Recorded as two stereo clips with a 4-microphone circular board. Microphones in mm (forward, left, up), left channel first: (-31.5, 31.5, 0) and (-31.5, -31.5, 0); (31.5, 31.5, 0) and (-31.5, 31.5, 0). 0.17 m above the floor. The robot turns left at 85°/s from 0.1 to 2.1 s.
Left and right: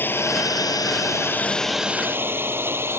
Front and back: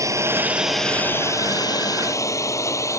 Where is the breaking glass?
I don't hear breaking glass.